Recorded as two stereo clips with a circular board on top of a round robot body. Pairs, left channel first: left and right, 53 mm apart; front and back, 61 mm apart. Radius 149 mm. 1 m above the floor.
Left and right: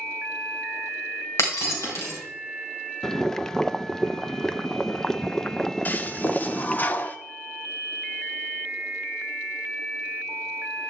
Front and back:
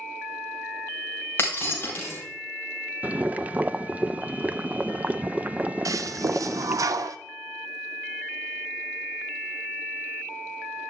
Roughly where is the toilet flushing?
Behind left.